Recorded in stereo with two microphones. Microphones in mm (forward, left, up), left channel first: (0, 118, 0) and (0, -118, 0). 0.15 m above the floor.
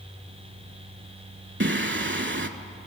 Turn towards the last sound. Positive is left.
turn(degrees=-55)  # may be behind; listen again after turning